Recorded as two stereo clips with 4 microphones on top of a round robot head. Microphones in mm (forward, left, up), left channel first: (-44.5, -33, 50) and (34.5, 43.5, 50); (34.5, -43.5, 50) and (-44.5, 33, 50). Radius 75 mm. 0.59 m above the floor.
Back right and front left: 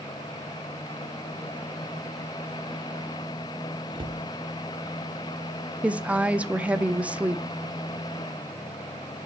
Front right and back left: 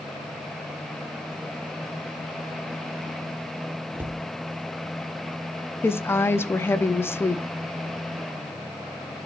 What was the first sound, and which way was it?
A cupboard door, 70° left.